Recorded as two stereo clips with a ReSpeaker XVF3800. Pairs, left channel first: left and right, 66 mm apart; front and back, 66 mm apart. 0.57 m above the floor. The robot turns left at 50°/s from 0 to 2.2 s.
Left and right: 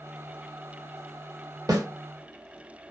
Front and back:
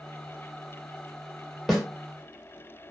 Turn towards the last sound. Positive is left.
turn(degrees=-110)